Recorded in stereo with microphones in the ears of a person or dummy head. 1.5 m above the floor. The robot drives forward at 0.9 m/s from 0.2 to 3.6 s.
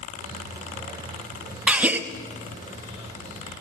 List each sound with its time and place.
1.7 s a gasp: 10° right (ahead or behind), 1.4 m